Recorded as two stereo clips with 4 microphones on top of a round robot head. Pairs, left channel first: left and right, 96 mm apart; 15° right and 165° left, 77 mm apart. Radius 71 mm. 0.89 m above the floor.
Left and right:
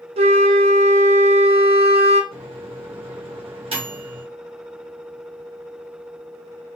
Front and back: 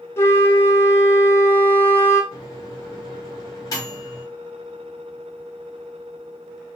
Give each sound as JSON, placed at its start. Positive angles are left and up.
{"t": 0.2, "sound": "a flute", "azimuth_deg": -75, "distance_m": 0.6}
{"t": 2.3, "sound": "a microwave", "azimuth_deg": -60, "distance_m": 1.6}